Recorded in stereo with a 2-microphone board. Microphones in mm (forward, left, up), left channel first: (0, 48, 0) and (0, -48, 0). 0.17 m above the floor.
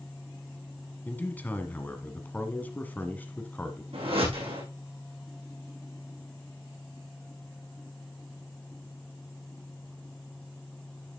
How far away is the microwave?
No microwave in this recording.